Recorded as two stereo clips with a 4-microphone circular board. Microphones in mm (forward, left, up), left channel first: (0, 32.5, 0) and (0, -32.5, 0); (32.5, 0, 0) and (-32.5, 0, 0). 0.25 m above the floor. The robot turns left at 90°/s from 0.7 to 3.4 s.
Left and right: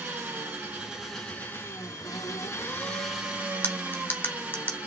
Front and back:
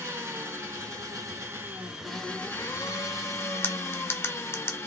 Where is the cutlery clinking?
40° left, 0.9 m.